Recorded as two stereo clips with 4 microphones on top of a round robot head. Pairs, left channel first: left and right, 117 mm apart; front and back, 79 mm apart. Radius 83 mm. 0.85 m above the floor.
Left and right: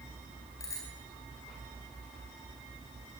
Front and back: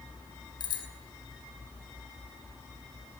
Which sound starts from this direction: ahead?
A bicycle bell, at 0.6 s.